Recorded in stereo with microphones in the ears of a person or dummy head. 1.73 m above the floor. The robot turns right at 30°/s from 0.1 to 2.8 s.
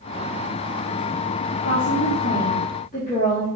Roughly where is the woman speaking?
Left.